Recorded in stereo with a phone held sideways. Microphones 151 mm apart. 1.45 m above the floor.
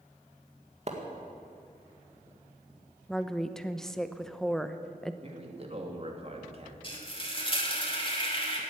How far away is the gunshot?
No gunshot in this recording.